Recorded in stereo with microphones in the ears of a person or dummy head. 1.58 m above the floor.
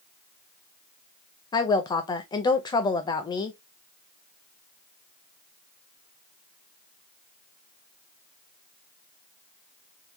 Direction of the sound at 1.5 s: 20° left (ahead or behind).